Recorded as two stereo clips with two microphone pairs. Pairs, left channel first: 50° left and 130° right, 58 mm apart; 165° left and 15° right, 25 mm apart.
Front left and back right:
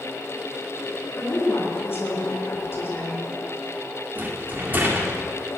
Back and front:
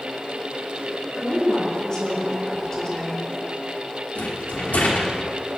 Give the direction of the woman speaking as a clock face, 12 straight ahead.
9 o'clock.